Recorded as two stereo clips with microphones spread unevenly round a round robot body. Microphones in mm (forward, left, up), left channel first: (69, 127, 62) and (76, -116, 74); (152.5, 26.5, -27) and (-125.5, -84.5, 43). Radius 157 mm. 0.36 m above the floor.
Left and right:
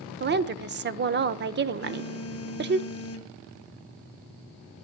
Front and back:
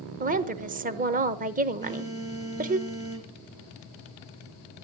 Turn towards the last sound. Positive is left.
turn(degrees=120)